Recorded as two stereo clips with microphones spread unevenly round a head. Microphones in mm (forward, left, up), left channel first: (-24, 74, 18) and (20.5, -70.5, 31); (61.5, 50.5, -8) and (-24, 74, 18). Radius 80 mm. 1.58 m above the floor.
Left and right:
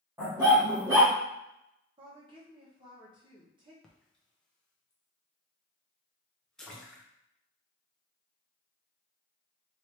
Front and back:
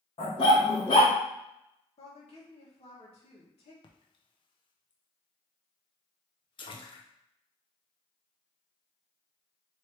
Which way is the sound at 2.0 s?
15° right.